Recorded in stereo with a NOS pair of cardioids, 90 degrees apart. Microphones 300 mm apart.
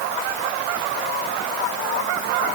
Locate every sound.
Only background noise.